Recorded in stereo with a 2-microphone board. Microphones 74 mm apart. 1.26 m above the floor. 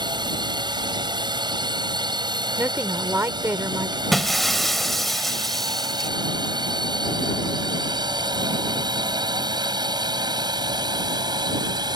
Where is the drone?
80° right; by 12.0 s 70° right (ahead or behind).